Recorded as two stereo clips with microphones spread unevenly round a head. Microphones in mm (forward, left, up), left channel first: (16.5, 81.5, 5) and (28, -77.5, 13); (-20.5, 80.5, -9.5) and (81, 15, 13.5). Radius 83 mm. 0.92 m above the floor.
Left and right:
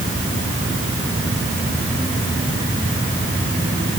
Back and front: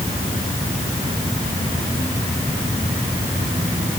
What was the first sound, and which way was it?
Only background noise.